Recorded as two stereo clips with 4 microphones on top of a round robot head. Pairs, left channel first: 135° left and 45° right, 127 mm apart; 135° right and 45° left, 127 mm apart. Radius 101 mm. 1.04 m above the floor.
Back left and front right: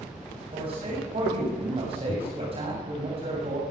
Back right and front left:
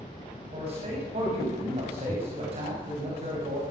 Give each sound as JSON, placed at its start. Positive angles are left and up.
{"t": 0.5, "sound": "a man speaking", "azimuth_deg": 0, "distance_m": 7.5}